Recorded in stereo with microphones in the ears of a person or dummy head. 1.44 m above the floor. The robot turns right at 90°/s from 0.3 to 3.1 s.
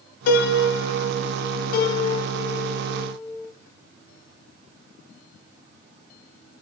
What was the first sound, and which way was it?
A piano, 55° left.